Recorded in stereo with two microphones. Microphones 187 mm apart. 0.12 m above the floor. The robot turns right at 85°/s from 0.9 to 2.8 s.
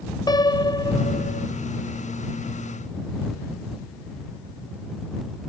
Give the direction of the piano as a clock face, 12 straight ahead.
11 o'clock.